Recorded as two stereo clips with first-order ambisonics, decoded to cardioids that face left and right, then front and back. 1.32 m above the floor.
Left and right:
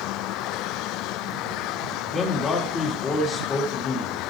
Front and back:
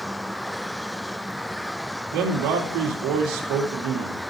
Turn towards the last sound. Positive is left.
turn(degrees=155)